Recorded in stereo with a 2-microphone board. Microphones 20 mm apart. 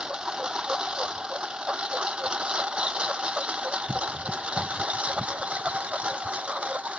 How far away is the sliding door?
I don't hear a sliding door.